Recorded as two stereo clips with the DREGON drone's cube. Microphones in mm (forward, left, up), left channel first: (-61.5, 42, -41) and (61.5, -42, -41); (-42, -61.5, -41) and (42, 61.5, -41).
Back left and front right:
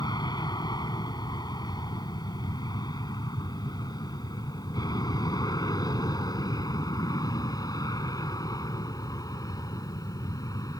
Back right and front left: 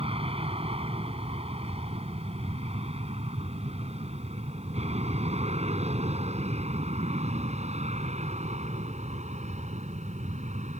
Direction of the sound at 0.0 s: 90° left.